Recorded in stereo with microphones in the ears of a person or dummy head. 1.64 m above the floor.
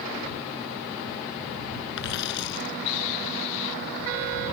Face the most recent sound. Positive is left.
turn(degrees=65)  # may be behind; listen again after turning